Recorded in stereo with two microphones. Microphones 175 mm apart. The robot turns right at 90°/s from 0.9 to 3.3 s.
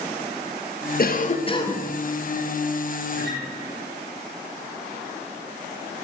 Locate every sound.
1.0 s a cough: 95° left, 0.7 m; by 1.9 s 175° left, 0.7 m
3.1 s a guitar: 55° right (ahead or behind), 3 m; by 3.4 s 75° right (ahead or behind), 3 m